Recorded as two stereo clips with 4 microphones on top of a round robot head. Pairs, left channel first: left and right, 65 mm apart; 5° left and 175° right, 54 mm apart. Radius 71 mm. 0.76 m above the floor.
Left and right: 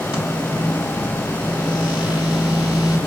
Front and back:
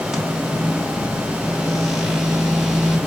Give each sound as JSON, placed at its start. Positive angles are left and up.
{"t": 0.1, "sound": "a microwave", "azimuth_deg": 100, "distance_m": 4.5}